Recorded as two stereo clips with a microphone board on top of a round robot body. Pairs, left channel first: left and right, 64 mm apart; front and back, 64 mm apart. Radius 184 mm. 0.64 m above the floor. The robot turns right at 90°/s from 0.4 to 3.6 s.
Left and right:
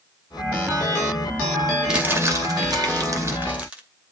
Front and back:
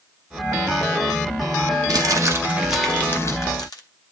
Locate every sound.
1.9 s crumpling: 170° right, 2 m; by 3.8 s 15° right, 2 m